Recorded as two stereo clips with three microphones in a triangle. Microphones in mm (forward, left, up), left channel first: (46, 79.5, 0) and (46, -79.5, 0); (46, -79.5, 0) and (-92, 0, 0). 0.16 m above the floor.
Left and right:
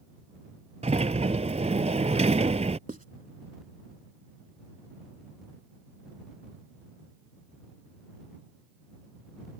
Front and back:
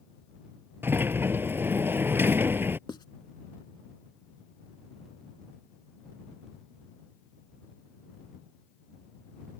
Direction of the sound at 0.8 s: 135° right.